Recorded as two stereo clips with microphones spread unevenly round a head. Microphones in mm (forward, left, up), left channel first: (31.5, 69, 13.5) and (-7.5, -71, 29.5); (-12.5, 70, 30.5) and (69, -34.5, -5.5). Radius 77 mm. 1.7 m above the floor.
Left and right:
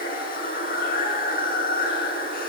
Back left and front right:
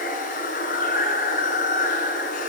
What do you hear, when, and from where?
0.0 s running water: 110° left, 7.5 m